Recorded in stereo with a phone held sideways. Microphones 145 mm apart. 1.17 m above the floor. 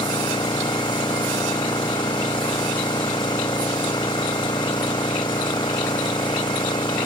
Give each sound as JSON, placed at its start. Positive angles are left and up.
{"t": 0.0, "sound": "an engine running", "side_deg": 30}